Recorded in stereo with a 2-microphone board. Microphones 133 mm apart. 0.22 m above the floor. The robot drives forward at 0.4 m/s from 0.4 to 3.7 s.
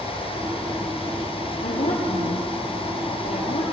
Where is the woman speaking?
75° left (ahead or behind), 4.5 m; by 3.6 s 70° left (ahead or behind), 4.5 m.